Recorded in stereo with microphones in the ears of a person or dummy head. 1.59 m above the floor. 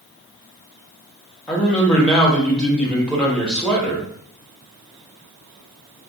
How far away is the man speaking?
About 0.9 m.